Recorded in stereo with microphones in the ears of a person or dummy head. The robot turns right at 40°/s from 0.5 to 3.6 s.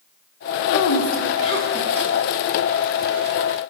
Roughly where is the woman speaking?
Left.